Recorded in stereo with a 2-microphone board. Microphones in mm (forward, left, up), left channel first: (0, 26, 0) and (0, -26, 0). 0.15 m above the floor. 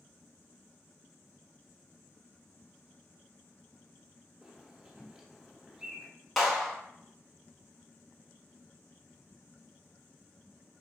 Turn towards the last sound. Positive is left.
turn(degrees=0)  # may be behind; listen again after turning